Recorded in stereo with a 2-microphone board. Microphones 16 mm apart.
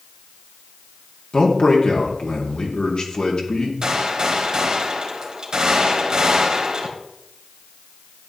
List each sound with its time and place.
1.3 s a man speaking: 65° left (ahead or behind), 2.0 m
3.8 s a gunshot: 55° right (ahead or behind), 2 m